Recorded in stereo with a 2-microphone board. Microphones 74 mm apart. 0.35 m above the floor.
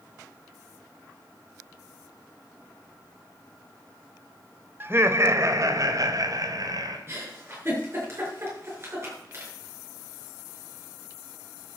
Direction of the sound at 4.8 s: 30° right (ahead or behind).